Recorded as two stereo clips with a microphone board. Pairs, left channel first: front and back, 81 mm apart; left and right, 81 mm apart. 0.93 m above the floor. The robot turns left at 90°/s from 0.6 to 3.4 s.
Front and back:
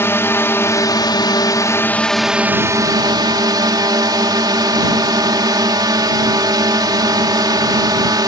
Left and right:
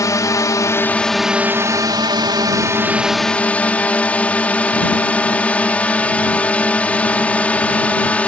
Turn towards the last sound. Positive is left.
turn(degrees=160)